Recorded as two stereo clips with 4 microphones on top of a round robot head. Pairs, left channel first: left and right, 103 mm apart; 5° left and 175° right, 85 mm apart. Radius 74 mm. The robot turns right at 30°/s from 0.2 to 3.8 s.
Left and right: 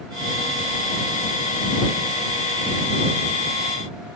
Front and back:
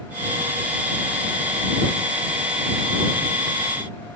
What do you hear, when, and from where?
Only background noise.